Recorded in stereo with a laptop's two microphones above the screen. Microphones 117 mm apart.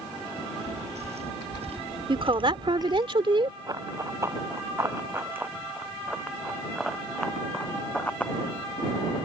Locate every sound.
0.4 s footsteps: 75° right (ahead or behind); by 3.1 s 25° right (ahead or behind)
2.1 s a woman speaking: 50° right (ahead or behind)
3.7 s running footsteps: 35° right (ahead or behind); by 8.3 s 15° left (ahead or behind)